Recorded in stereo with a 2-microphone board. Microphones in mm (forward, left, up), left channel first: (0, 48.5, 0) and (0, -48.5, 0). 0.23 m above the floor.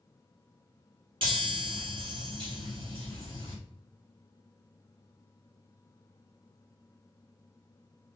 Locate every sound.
1.2 s a chime: 60° right (ahead or behind), 2.5 m